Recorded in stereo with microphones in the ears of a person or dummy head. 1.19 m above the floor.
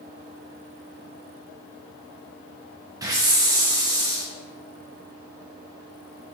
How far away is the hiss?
About 0.6 m.